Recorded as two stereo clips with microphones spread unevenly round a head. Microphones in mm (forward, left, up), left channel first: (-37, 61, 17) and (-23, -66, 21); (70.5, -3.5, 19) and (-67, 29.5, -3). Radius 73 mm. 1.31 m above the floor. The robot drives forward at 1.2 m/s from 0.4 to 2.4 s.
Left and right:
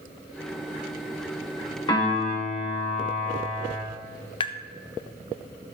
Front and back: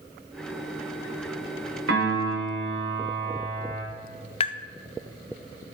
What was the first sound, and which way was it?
A piano, 155° left.